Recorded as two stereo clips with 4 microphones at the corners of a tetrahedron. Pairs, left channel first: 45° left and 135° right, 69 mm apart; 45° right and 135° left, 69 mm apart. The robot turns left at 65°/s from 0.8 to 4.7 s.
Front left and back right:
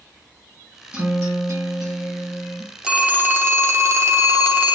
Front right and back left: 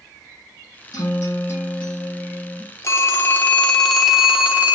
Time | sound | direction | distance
0.9 | a guitar | 65° right | 1.4 m
2.8 | a phone ringing | 65° right | 0.5 m